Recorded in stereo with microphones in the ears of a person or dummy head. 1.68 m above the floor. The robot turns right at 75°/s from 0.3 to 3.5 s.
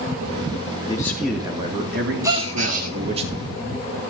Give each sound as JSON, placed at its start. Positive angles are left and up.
{"t": 0.9, "sound": "a man speaking", "azimuth_deg": 155, "distance_m": 2.5}
{"t": 2.2, "sound": "a gasp", "azimuth_deg": -160, "distance_m": 2.5}